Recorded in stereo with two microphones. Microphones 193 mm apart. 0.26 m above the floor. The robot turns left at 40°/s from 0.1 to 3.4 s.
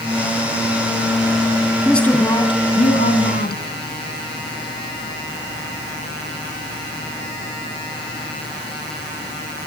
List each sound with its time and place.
1.9 s a woman speaking: straight behind, 3 m; by 3.6 s 115° left, 3 m